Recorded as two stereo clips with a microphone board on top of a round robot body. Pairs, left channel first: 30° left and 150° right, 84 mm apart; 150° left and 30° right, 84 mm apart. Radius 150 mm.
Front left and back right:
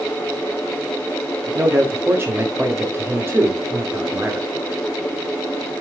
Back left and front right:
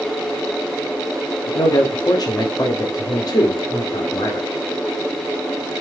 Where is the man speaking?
155° left, 2 m.